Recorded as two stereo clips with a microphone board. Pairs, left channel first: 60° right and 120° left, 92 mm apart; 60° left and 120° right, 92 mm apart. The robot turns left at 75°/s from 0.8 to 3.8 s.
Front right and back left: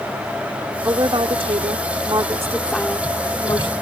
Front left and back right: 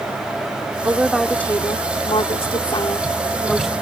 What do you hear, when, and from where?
0.8 s a woman speaking: 175° left; by 3.7 s 40° right